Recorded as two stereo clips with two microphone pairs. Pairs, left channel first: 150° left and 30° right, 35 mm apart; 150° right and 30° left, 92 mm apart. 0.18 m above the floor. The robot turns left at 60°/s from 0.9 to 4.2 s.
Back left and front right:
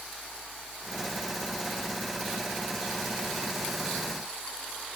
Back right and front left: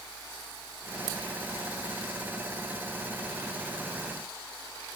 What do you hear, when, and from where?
Only background noise.